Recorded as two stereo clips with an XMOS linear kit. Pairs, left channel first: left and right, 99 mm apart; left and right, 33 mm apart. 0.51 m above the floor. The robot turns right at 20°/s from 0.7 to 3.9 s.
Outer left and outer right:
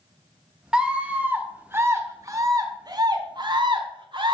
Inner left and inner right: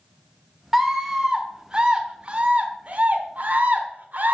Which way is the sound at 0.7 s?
170° right.